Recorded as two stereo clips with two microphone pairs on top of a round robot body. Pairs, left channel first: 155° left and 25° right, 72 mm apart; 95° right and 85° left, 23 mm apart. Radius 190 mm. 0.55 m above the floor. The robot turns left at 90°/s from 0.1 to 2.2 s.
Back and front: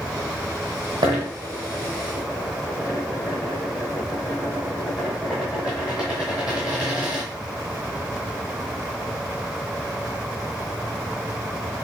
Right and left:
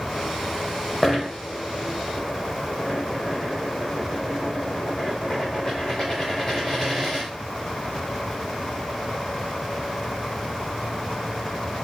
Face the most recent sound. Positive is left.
turn(degrees=-135)